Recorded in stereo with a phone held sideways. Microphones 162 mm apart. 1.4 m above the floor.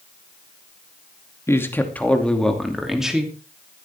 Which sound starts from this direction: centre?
A man speaking, at 1.5 s.